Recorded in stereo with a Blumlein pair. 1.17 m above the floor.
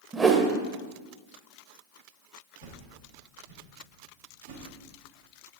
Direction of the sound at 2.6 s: 60° right.